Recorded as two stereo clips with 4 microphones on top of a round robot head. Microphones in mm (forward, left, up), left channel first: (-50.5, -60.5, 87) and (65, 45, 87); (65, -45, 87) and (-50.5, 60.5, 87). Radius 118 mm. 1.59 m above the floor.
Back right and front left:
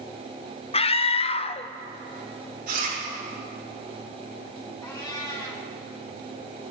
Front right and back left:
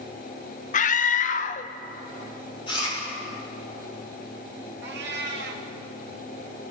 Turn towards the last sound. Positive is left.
turn(degrees=150)